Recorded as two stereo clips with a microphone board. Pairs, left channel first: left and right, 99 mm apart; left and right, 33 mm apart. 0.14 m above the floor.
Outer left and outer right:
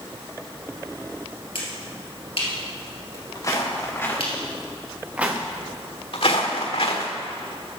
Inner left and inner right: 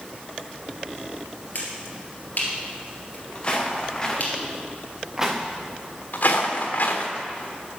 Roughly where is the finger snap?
Left.